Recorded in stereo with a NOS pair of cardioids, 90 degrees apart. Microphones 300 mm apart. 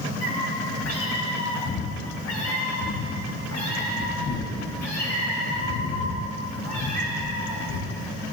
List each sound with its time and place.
0.2 s a cat meowing: 60° left, 3.5 m; by 8.1 s 65° left, 7.5 m